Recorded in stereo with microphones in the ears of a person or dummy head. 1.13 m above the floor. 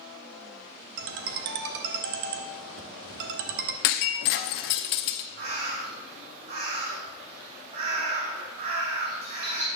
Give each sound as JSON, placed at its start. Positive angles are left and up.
{"t": 1.0, "sound": "a ringtone", "side_deg": -65, "distance_m": 1.1}
{"t": 3.8, "sound": "breaking glass", "side_deg": 55, "distance_m": 0.8}
{"t": 5.4, "sound": "a bird", "side_deg": -55, "distance_m": 3.5}